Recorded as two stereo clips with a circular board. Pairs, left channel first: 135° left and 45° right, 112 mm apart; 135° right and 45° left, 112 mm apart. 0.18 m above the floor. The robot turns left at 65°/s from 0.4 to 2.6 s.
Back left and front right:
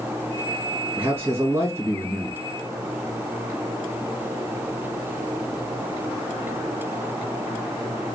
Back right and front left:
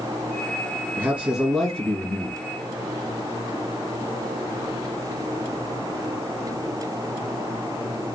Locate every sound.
1.0 s a man speaking: 5° right, 1.4 m; by 2.4 s 95° right, 1.4 m